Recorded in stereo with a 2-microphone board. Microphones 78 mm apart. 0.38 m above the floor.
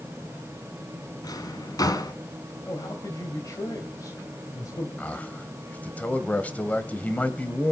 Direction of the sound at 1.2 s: 55° left (ahead or behind).